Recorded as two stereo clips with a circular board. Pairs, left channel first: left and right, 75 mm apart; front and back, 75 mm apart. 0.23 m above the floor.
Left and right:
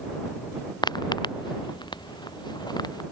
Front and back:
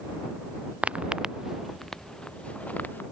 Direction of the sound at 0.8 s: 110° left.